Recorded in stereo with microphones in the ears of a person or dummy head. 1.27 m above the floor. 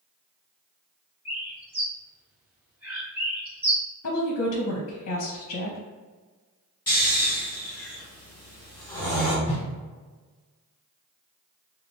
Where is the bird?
10° right (ahead or behind), 1.1 m.